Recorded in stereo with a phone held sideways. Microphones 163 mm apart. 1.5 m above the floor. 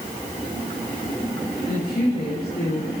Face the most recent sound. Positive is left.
turn(degrees=85)